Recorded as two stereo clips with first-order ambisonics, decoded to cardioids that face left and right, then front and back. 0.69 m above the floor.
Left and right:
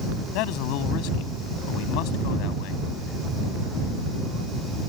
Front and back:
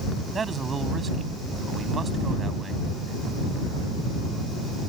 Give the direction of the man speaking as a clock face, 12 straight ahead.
8 o'clock.